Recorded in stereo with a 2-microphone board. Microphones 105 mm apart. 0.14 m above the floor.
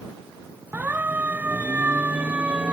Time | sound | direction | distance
0.7 | a siren | 15° right (ahead or behind) | ?